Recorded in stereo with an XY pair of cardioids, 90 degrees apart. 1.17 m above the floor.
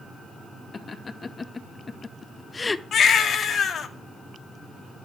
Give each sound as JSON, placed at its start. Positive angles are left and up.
{"t": 0.7, "sound": "laughter", "azimuth_deg": 40, "distance_m": 2.0}
{"t": 2.9, "sound": "a baby crying", "azimuth_deg": 65, "distance_m": 2.0}